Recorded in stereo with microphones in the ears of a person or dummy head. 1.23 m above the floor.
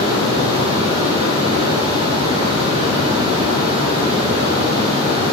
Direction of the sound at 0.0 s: 35° right (ahead or behind).